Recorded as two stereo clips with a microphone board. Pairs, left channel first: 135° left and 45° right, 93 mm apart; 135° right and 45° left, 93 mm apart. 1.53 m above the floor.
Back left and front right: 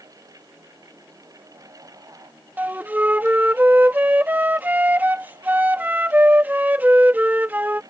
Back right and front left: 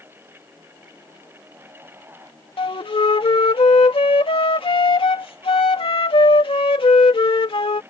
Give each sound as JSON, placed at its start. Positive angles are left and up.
{"t": 2.6, "sound": "a flute", "azimuth_deg": -115}